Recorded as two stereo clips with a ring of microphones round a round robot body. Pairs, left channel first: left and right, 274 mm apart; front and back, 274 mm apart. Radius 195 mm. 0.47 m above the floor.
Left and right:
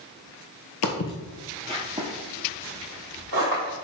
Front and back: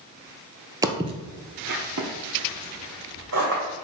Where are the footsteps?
105° left, 0.7 m; by 3.7 s 120° right, 1.4 m.